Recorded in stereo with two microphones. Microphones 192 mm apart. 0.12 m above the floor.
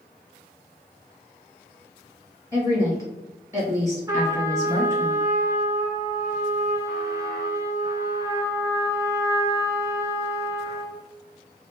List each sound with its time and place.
2.5 s a woman speaking: 15° right (ahead or behind), 1.6 m
4.1 s a trumpet: 20° right (ahead or behind), 0.8 m